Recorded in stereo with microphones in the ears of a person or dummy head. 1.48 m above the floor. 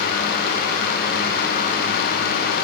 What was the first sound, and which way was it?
Only background noise.